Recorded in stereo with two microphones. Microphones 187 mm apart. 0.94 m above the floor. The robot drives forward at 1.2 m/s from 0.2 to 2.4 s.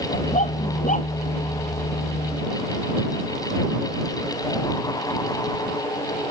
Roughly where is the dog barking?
Left.